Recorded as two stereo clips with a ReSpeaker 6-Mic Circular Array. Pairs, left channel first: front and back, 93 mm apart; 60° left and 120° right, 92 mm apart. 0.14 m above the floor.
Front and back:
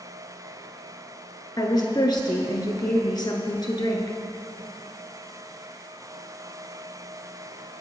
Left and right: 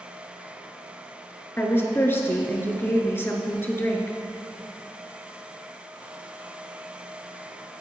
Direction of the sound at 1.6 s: 5° left.